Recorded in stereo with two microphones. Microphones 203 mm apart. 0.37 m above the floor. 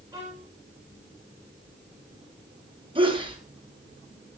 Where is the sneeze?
25° right (ahead or behind), 5.5 m.